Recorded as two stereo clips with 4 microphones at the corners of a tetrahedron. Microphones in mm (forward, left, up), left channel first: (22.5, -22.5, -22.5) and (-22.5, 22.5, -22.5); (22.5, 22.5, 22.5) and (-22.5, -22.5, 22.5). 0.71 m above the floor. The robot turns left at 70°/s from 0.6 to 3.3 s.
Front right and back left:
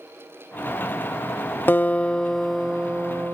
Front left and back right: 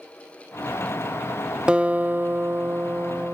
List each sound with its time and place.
1.7 s a guitar: 75° right, 0.5 m; by 3.4 s 175° left, 0.5 m